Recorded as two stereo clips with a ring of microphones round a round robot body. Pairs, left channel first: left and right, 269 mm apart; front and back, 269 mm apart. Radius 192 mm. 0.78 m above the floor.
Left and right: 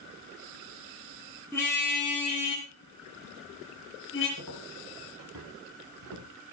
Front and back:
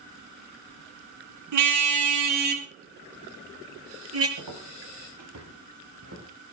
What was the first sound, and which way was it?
A car horn, 175° left.